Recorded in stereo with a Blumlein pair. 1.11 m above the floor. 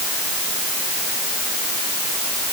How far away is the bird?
No bird in this recording.